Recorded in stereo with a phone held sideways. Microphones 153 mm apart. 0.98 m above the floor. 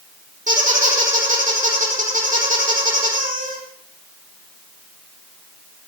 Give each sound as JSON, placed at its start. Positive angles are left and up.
{"t": 0.5, "sound": "a squeak", "side_deg": -60, "distance_m": 7.5}